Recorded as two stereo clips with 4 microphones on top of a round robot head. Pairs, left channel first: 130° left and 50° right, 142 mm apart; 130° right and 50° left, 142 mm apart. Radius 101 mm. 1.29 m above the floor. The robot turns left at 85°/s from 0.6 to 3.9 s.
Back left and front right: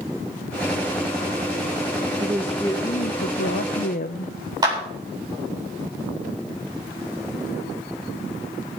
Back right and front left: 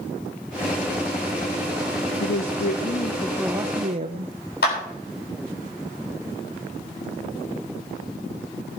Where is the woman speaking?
120° right, 0.8 m; by 4.3 s 100° left, 0.8 m.